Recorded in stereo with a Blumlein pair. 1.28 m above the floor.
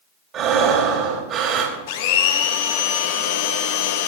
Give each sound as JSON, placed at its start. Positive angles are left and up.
{"t": 0.3, "sound": "breathing", "azimuth_deg": -30, "distance_m": 3.0}
{"t": 1.9, "sound": "a blender", "azimuth_deg": 50, "distance_m": 1.3}